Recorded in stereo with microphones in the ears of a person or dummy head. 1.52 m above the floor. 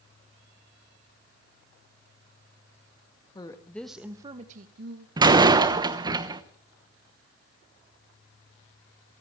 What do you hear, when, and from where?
3.4 s a woman speaking: 20° left (ahead or behind), 1.9 m; by 5.1 s 70° right (ahead or behind), 1.7 m
5.2 s a door slam: 25° right (ahead or behind), 1.1 m